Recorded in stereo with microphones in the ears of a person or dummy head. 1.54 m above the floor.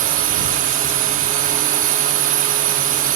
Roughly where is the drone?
Right.